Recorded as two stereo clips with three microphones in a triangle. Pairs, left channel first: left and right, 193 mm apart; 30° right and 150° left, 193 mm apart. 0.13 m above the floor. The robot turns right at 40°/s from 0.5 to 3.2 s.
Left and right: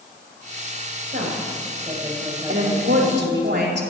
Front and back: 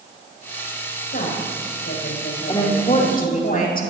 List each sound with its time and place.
1.1 s a woman speaking: 65° right, 5.5 m; by 3.5 s 20° left, 5.5 m
2.5 s a woman speaking: 100° right, 5 m; by 3.9 s 70° right, 5 m